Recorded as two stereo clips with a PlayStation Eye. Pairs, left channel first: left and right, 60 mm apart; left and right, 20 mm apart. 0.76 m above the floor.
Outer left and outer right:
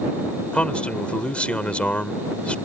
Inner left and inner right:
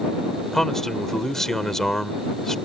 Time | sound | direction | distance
0.5 | a man speaking | 20° left (ahead or behind) | ?